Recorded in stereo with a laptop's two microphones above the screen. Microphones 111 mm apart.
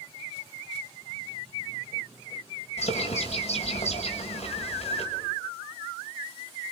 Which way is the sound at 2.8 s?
80° left.